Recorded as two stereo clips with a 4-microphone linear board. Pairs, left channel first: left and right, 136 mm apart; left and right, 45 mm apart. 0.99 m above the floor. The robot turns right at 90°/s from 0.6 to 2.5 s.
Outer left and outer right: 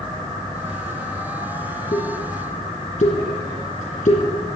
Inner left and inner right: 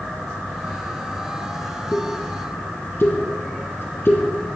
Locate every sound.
1.9 s a pop: 55° left (ahead or behind), 3.5 m; by 4.6 s 65° left (ahead or behind), 3.5 m